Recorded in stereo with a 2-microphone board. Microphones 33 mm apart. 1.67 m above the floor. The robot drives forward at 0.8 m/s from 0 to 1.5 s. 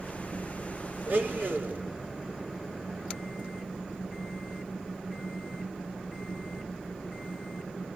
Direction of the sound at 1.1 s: 60° right (ahead or behind).